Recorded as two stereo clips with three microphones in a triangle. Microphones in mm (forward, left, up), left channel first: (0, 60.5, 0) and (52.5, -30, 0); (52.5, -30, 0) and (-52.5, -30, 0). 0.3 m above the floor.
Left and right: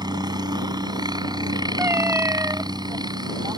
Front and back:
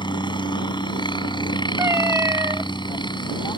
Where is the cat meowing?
120° right.